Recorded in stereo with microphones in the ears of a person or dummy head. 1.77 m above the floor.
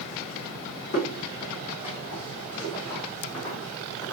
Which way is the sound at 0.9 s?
35° left (ahead or behind).